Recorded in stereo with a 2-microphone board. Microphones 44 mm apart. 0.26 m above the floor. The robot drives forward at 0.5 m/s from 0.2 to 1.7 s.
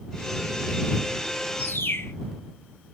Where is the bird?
60° left (ahead or behind), 0.9 m; by 2.1 s 65° left (ahead or behind), 0.9 m.